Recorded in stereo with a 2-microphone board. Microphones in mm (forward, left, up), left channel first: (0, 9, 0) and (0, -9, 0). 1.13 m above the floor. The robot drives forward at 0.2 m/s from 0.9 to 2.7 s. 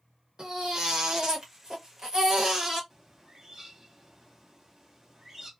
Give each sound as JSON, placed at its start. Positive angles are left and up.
{"t": 0.4, "sound": "a baby crying", "side_deg": -45, "distance_m": 1.1}
{"t": 2.9, "sound": "a bird", "side_deg": -25, "distance_m": 0.9}